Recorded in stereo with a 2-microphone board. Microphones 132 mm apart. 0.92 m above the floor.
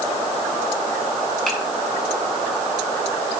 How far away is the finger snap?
About 7.5 m.